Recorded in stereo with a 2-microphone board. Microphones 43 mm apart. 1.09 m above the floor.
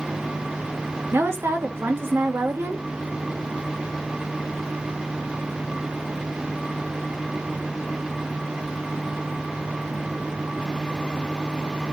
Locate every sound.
1.1 s a woman speaking: 70° right (ahead or behind), 2.0 m